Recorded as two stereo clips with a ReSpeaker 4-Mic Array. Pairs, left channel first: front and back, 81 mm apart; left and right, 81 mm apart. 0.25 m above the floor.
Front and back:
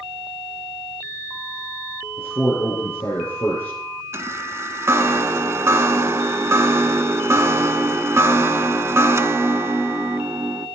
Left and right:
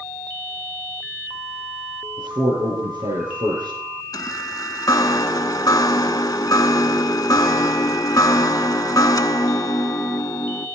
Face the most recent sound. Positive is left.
turn(degrees=130)